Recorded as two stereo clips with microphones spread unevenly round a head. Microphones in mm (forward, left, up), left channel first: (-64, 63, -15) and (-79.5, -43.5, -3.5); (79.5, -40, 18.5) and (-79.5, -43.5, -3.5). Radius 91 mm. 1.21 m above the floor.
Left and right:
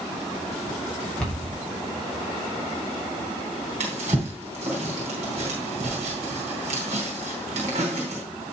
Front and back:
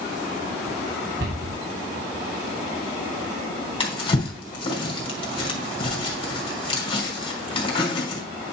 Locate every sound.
1.2 s a cupboard door: 165° left, 4 m
3.8 s a drawer: 55° right, 4 m